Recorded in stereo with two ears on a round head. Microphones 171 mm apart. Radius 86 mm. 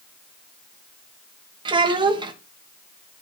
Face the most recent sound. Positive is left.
turn(degrees=-25)  # may be behind; listen again after turning